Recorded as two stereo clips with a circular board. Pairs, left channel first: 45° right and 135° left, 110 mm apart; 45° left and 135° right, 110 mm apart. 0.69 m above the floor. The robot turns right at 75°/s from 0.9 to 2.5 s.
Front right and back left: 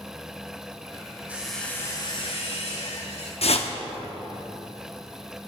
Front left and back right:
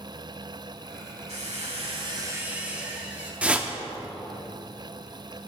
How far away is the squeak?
About 1.7 m.